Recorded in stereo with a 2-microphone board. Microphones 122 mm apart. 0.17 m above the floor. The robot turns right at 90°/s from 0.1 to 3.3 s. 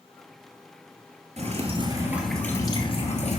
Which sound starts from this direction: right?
Dripping, at 1.4 s.